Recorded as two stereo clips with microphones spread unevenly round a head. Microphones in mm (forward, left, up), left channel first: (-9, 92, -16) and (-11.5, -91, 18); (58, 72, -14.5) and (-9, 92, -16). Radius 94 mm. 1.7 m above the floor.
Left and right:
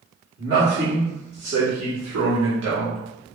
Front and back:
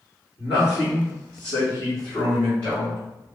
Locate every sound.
0.4 s a man speaking: 60° right, 2.5 m; by 3.0 s 100° right, 1.8 m